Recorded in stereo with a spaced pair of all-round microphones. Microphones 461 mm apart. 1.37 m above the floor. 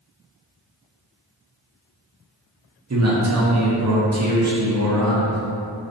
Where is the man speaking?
35° right (ahead or behind), 0.6 m.